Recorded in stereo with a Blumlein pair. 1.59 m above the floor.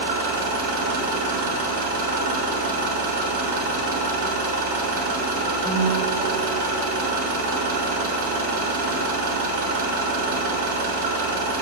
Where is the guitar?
5° right, 1.3 m.